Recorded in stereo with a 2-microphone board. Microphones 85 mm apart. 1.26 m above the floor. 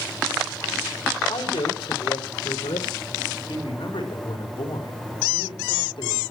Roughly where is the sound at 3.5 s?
Left.